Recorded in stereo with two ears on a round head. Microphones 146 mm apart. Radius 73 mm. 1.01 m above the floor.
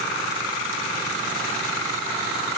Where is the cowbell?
No cowbell in this recording.